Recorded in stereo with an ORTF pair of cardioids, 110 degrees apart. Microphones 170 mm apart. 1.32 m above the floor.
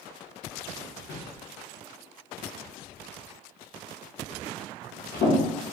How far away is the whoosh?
About 0.9 m.